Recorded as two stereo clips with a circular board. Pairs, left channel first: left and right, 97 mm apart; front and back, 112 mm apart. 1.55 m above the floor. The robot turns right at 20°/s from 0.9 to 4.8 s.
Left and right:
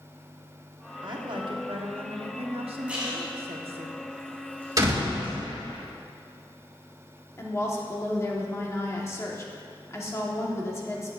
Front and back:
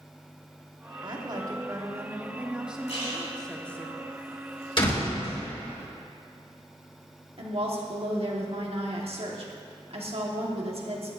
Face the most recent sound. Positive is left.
turn(degrees=150)